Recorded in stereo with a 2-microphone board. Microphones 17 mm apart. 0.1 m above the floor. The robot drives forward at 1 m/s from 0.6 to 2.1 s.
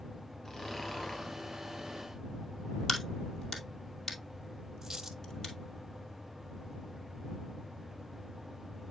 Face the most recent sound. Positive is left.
turn(degrees=-30)  # may be behind; listen again after turning